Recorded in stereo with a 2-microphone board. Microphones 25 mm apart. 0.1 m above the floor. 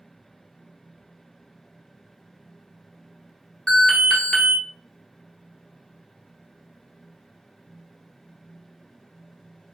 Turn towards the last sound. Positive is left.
turn(degrees=15)  # may be behind; listen again after turning